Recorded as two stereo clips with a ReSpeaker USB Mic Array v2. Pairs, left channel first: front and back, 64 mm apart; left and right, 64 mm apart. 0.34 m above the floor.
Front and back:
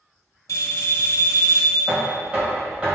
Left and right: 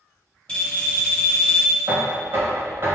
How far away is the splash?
No splash in this recording.